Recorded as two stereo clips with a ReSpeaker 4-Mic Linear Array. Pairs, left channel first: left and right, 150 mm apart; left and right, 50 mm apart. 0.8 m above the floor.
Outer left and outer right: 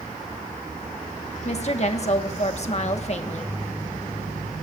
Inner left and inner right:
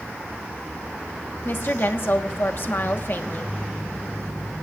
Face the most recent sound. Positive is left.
turn(degrees=50)  # may be behind; listen again after turning